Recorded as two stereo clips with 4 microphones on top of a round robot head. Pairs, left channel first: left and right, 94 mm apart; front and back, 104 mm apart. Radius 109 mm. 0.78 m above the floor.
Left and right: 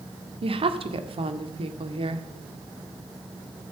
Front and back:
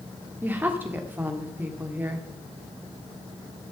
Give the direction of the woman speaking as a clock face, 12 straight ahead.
4 o'clock.